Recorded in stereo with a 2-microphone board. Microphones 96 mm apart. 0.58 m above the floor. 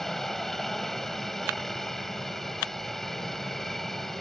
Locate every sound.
0.0 s a helicopter: 5° left (ahead or behind)